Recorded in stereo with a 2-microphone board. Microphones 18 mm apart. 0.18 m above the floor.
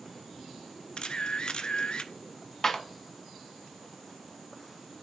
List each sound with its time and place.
1.0 s a camera shutter: 65° left (ahead or behind), 0.5 m
2.6 s a clap: 25° left (ahead or behind), 1.2 m